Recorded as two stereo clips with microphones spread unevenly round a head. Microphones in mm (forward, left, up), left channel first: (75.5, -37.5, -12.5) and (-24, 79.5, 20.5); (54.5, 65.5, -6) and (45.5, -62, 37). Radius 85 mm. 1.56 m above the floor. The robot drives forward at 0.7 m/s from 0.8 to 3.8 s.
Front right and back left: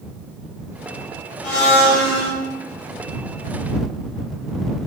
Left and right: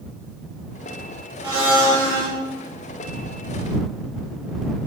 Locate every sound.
1.4 s a blender: 40° right, 3.5 m; by 2.3 s 45° right, 3 m